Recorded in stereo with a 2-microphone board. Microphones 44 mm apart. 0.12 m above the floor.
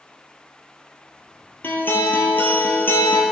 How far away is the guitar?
About 1.4 m.